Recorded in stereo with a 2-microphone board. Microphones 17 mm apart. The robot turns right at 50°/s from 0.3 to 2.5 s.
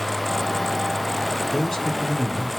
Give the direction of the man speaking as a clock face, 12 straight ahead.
11 o'clock.